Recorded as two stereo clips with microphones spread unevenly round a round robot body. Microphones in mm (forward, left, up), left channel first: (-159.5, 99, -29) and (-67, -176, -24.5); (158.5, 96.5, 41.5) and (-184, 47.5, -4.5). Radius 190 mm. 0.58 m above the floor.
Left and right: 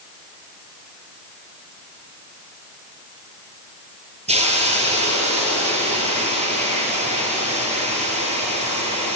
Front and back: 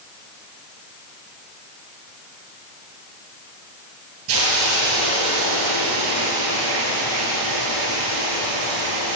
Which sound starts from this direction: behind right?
A hiss, at 4.3 s.